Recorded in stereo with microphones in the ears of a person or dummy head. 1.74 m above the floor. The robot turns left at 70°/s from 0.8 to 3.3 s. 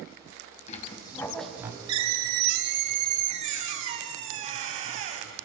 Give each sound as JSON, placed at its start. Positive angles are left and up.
{"t": 0.7, "sound": "a squeak", "azimuth_deg": 40, "distance_m": 3.0}